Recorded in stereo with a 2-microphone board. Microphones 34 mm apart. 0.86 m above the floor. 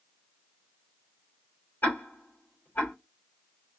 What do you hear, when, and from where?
1.8 s ticking: 85° left, 2.5 m